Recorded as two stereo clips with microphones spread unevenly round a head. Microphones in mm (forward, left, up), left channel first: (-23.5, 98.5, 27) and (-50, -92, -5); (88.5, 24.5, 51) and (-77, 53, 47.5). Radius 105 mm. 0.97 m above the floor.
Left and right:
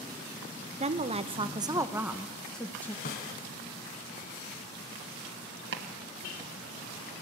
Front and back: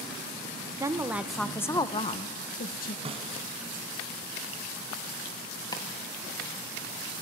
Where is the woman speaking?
125° right, 1.0 m; by 3.0 s 5° right, 1.2 m.